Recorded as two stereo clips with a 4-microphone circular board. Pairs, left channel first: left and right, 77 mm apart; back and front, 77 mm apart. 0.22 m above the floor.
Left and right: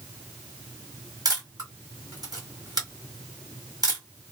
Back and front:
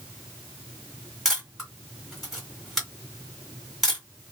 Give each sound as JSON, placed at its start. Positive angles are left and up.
{"t": 1.2, "sound": "a camera shutter", "azimuth_deg": -85, "distance_m": 2.5}